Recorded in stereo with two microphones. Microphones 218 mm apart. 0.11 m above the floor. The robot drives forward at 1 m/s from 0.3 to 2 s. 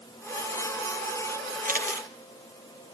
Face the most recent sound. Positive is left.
turn(degrees=-35)  # may be behind; listen again after turning